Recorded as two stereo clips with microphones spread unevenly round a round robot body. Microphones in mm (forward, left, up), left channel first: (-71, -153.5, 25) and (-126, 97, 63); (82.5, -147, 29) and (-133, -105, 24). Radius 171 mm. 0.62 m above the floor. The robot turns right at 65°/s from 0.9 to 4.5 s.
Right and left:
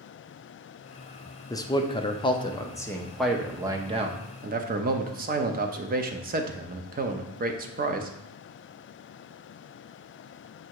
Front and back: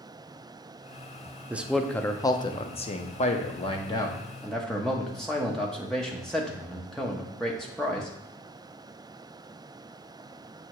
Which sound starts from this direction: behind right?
A man speaking, at 1.5 s.